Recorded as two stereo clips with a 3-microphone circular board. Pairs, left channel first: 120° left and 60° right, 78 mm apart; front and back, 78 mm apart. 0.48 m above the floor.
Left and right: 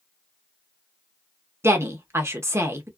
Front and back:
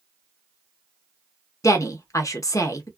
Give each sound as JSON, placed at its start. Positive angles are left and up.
{"t": 1.6, "sound": "a woman speaking", "azimuth_deg": -20, "distance_m": 0.9}